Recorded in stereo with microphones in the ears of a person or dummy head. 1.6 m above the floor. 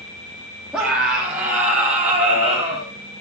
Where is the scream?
5° right (ahead or behind), 3.5 m; by 2.9 s 20° right (ahead or behind), 6 m.